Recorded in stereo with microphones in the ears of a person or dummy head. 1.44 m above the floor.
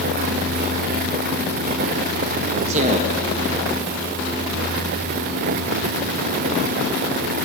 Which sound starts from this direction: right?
A man speaking, at 2.7 s.